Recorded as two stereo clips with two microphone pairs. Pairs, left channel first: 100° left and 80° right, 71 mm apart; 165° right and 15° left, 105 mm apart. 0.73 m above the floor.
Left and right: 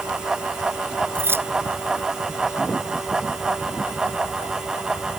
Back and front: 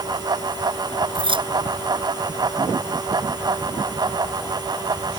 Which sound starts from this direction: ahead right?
Keys jangling, at 1.1 s.